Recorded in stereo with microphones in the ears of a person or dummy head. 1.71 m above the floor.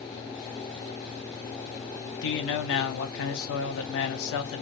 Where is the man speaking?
65° left (ahead or behind), 0.7 m.